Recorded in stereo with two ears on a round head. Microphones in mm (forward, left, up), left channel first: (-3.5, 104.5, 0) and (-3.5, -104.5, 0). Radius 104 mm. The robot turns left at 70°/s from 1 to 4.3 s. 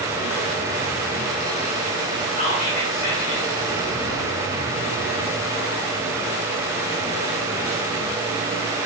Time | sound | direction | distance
2.4 | whispering | 140° left | 1.8 m